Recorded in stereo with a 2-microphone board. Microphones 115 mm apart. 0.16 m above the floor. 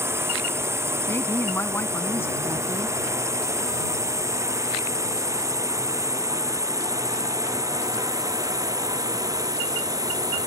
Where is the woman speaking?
20° left (ahead or behind).